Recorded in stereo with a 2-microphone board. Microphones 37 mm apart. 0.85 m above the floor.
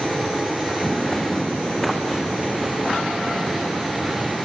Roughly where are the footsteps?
Centre.